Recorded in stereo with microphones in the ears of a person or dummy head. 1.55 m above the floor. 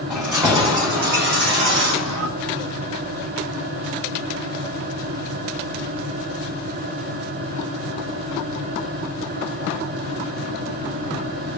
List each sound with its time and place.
0.1 s keys jangling: 10° right (ahead or behind), 0.8 m; by 2.3 s 65° right (ahead or behind), 1.1 m